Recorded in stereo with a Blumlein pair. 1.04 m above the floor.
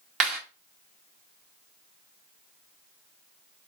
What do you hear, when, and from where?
0.2 s a clap: 30° right, 1.8 m